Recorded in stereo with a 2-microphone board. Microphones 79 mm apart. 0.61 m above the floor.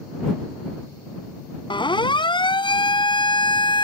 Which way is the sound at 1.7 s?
80° left.